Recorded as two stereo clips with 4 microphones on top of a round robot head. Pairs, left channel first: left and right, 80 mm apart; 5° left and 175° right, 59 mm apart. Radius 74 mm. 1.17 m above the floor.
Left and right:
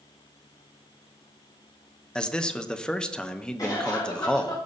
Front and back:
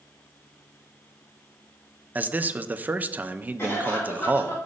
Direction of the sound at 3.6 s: 50° left.